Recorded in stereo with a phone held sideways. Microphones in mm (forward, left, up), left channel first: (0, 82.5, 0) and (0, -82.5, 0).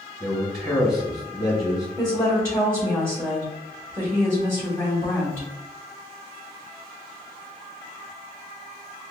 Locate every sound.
0.2 s a man speaking: 5° right (ahead or behind), 2.0 m
2.0 s a woman speaking: 15° right (ahead or behind), 1.9 m